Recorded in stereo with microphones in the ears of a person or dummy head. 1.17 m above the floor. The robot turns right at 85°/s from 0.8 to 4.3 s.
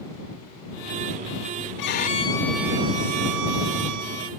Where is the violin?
115° left; by 4.3 s 30° right.